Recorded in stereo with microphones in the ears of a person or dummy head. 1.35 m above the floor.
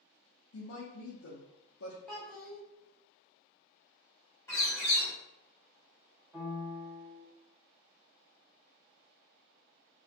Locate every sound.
0.5 s a woman speaking: 70° left (ahead or behind), 0.6 m
2.1 s a child speaking: 5° left (ahead or behind), 0.8 m
4.5 s a bird: 15° left (ahead or behind), 1.1 m
6.3 s a piano: 15° right (ahead or behind), 1.0 m